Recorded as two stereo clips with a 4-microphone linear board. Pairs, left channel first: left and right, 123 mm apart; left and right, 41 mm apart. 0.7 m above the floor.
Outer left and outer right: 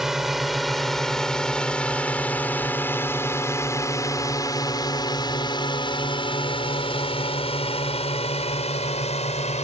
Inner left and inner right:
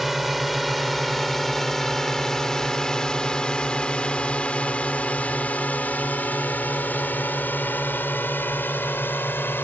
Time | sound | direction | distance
0.0 | a drone | centre (ahead or behind) | ?